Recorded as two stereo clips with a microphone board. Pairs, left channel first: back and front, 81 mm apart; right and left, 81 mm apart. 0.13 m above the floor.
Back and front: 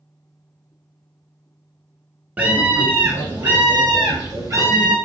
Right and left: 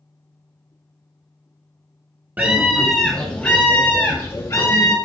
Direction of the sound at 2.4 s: 50° left.